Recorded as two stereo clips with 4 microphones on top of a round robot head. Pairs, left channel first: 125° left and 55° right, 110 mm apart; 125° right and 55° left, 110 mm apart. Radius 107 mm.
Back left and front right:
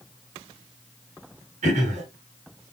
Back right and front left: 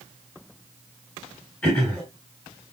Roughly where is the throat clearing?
Ahead right.